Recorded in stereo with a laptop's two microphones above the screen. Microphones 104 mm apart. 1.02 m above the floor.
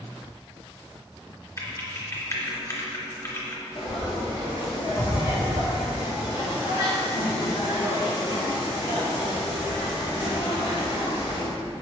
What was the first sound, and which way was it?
Typing on a keyboard, 30° left (ahead or behind).